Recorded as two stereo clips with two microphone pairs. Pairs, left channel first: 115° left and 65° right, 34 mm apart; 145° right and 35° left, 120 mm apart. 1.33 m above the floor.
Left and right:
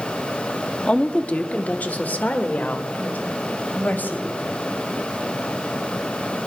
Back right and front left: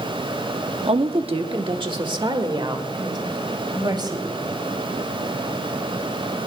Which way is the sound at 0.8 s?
60° left.